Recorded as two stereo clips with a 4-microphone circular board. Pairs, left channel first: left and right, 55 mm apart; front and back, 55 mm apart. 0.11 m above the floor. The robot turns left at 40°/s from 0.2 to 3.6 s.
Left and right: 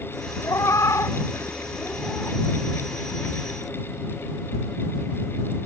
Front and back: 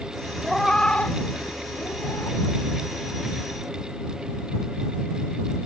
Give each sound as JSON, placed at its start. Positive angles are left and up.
{"t": 0.4, "sound": "a cat meowing", "azimuth_deg": 90}